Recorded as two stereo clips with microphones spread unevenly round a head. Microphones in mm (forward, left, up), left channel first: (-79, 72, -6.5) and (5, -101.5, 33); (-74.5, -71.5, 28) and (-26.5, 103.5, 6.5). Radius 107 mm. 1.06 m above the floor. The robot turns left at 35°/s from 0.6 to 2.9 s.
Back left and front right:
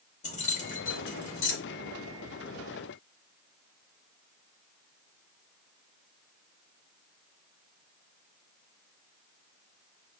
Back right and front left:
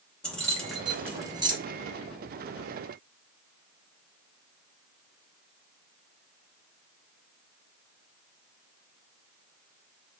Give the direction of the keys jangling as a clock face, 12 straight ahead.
6 o'clock.